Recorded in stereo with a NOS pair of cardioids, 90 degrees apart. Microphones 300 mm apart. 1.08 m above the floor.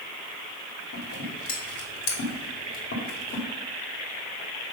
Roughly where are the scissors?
Ahead left.